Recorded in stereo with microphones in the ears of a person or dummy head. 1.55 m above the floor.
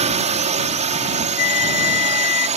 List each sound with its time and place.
0.0 s a drone: 35° right (ahead or behind)
1.4 s a flute: 50° left (ahead or behind)